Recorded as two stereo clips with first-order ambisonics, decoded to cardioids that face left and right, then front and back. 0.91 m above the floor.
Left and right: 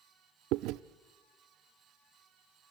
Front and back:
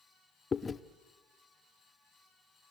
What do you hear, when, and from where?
0.5 s chewing: 70° right, 0.6 m